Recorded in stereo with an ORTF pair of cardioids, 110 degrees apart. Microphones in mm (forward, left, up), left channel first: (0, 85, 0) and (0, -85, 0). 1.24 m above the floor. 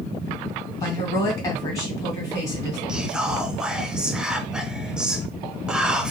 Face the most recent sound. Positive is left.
turn(degrees=-5)